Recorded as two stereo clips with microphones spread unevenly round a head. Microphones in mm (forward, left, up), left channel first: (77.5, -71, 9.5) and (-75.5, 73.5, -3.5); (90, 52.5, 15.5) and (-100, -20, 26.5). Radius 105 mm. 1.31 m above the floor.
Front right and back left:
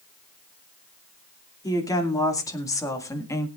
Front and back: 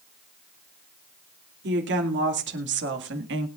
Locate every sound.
1.6 s a woman speaking: 120° right, 2.5 m